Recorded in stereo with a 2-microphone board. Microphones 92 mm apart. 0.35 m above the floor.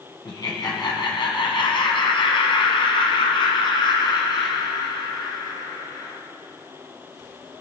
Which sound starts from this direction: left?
Laughter, at 0.2 s.